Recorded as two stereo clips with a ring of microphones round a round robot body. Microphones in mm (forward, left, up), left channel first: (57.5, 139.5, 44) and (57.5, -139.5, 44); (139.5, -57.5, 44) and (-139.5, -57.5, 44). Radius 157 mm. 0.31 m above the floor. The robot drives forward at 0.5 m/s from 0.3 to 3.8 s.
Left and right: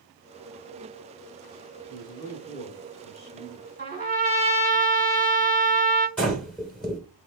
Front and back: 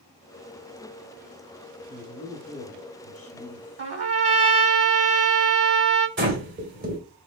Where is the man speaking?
20° left, 1.9 m; by 3.7 s 55° left, 1.5 m.